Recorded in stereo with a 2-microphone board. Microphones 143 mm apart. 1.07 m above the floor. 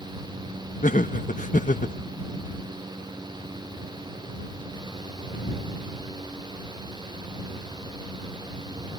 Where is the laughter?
65° left (ahead or behind).